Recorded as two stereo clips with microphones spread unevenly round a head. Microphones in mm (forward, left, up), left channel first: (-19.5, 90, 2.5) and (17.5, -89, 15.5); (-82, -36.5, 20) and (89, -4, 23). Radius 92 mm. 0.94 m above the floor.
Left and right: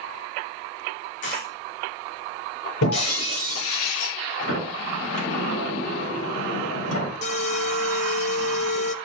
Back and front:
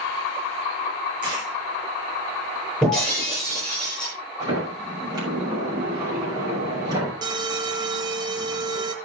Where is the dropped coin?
75° left, 7.5 m.